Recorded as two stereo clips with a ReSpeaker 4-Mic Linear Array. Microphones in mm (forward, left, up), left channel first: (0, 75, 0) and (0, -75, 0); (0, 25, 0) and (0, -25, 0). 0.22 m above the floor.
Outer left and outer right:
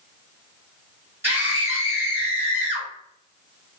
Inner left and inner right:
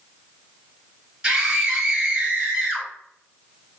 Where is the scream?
15° right (ahead or behind), 1.4 m.